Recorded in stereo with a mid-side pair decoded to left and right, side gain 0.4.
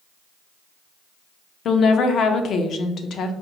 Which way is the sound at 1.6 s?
70° left.